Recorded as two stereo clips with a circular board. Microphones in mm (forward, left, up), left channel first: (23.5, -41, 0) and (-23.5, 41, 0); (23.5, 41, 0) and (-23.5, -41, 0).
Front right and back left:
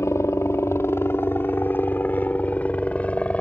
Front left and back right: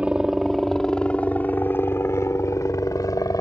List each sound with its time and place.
0.0 s a helicopter: 55° right; by 3.4 s 15° left